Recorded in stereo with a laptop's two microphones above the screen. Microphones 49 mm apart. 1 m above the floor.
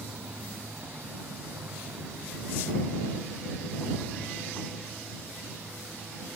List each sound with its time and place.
0.0 s a motorcycle: 45° right (ahead or behind); by 6.4 s 60° right (ahead or behind)